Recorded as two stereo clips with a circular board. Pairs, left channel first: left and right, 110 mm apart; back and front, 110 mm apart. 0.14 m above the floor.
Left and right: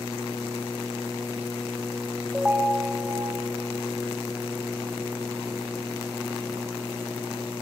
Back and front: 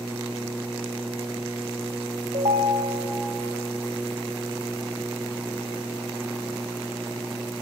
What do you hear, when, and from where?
2.3 s a ringtone: 10° right, 3 m